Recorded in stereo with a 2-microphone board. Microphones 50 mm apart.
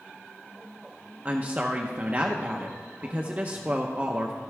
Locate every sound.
1.2 s a woman speaking: 30° right (ahead or behind), 0.7 m